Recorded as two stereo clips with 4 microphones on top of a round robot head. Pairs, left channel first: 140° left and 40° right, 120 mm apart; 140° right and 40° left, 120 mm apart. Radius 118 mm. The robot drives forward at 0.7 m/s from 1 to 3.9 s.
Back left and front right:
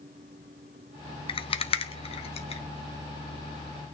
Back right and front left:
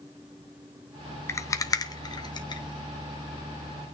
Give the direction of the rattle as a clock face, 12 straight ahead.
7 o'clock.